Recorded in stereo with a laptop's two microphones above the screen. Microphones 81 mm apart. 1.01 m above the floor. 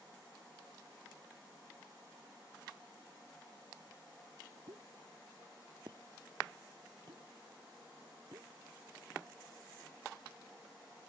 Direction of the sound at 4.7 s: 65° right (ahead or behind).